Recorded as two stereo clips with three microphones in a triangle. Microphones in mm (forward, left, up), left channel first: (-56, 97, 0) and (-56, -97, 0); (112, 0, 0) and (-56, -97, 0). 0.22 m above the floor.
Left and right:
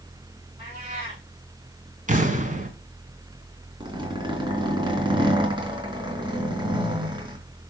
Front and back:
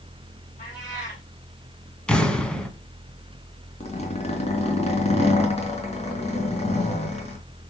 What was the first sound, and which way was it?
A cat meowing, 25° right.